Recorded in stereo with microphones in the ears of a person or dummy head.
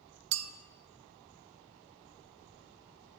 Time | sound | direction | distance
0.3 | a clink | 85° right | 0.6 m